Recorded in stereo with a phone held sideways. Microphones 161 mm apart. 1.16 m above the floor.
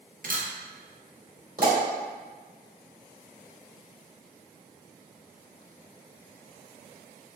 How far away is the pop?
About 1.9 m.